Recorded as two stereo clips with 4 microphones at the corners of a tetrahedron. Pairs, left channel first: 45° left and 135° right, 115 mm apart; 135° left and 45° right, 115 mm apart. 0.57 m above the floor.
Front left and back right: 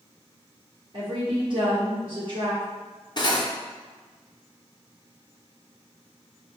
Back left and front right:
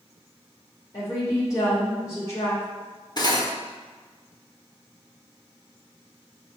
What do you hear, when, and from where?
0.9 s a woman speaking: 170° right, 1.9 m
3.2 s cutlery clinking: 90° left, 0.7 m